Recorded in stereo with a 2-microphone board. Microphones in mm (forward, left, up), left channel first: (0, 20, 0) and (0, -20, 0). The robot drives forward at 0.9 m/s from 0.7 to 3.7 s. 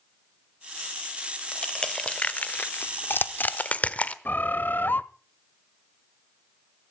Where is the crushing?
20° left (ahead or behind), 1.5 m; by 4.2 s 40° left (ahead or behind), 0.8 m.